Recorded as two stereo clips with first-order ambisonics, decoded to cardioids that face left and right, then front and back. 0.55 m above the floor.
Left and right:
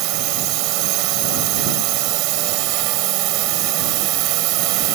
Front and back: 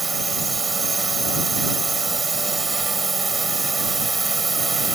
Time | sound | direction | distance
0.0 | a drone | 105° right | ?